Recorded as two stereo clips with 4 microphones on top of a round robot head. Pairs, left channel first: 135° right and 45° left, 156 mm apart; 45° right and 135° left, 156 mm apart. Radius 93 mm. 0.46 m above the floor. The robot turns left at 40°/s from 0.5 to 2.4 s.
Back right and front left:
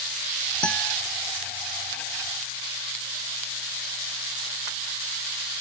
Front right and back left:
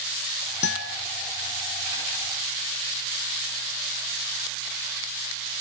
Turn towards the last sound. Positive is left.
turn(degrees=-120)